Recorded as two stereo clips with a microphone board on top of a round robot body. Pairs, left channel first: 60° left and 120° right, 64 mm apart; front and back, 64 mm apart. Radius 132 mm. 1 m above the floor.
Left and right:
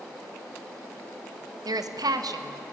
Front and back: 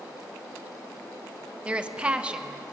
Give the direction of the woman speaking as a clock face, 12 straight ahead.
4 o'clock.